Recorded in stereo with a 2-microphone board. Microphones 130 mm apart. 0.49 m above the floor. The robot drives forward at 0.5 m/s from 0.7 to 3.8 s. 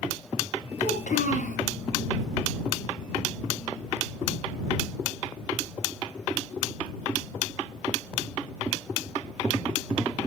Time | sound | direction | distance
0.8 | a child speaking | 75° left (ahead or behind) | 6 m